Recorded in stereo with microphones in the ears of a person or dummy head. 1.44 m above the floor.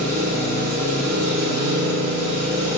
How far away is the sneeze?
No sneeze in this recording.